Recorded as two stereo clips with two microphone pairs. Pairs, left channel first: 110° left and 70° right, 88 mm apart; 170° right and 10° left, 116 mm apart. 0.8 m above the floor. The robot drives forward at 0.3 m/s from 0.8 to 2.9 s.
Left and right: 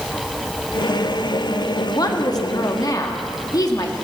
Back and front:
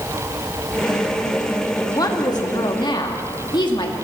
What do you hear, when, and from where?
1.9 s a woman speaking: 140° left, 1.4 m; by 3.9 s 145° left, 1.6 m